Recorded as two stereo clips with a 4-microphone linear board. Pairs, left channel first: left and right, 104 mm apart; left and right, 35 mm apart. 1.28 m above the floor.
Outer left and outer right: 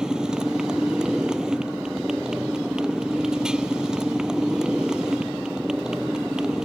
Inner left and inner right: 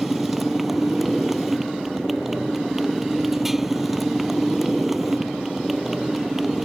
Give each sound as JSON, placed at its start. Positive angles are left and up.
{"t": 0.0, "sound": "a motorcycle", "side_deg": -5}